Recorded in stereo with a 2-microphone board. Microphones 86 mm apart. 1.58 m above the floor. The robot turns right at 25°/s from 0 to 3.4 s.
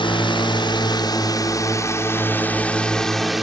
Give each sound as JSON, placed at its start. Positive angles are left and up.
{"t": 0.0, "sound": "a drone", "azimuth_deg": 100}